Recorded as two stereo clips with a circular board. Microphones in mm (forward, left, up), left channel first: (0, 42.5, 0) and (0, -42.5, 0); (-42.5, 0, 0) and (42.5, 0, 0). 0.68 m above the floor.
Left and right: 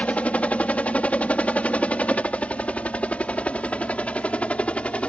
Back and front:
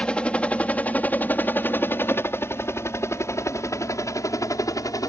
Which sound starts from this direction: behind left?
A helicopter, at 0.0 s.